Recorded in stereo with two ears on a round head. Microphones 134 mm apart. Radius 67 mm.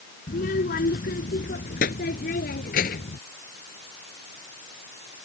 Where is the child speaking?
65° left (ahead or behind).